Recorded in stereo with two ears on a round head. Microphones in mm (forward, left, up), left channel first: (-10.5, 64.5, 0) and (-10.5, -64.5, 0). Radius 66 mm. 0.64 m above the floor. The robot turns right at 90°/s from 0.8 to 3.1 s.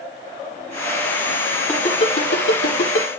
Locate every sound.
1.7 s a ringtone: 5° left (ahead or behind), 6 m; by 3.1 s 50° left (ahead or behind), 6 m